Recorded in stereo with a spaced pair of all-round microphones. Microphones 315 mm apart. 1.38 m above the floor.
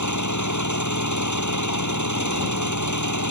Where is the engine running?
65° left (ahead or behind).